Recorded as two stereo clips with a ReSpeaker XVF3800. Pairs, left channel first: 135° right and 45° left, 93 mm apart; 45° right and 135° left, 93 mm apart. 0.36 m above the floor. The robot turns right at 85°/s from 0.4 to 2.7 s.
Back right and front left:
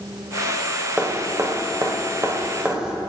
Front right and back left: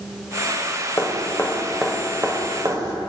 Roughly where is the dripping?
Ahead right.